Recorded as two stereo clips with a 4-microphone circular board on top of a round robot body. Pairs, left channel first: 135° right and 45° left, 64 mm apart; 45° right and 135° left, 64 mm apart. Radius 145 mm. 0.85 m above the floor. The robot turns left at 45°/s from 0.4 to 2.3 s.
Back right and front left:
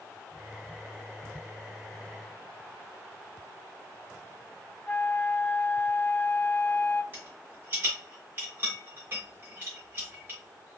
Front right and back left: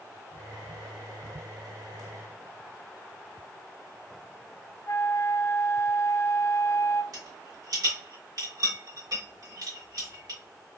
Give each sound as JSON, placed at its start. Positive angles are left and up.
{"t": 4.9, "sound": "a flute", "azimuth_deg": -75, "distance_m": 0.7}
{"t": 7.1, "sound": "a rattle", "azimuth_deg": 105, "distance_m": 1.0}